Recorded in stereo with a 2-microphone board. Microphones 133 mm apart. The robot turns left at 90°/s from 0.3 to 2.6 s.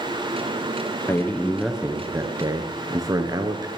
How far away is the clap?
I don't hear a clap.